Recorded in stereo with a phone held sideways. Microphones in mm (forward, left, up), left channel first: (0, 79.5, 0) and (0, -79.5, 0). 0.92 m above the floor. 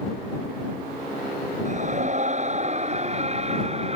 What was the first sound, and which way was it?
A scream, 45° right (ahead or behind).